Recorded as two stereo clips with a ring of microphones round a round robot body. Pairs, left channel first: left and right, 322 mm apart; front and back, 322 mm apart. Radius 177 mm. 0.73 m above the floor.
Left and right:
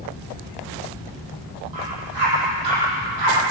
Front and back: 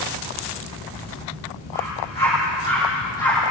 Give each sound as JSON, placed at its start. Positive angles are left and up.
{"t": 1.7, "sound": "a dog barking", "azimuth_deg": -75, "distance_m": 9.5}